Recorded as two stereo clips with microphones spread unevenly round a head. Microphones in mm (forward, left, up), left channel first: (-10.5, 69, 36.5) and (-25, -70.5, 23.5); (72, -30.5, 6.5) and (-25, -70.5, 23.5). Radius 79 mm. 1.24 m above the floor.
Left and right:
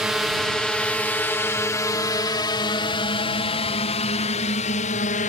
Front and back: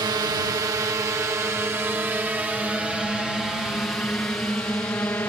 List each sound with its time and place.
0.0 s a drone: 175° right; by 5.3 s 95° left